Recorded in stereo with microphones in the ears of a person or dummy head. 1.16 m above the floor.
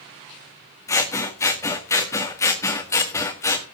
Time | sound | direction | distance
0.9 | scissors | 15° left (ahead or behind) | 1.7 m